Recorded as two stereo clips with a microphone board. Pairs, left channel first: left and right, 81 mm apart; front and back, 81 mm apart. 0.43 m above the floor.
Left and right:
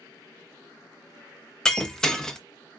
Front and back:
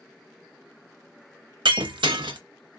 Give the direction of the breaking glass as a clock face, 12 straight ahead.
6 o'clock.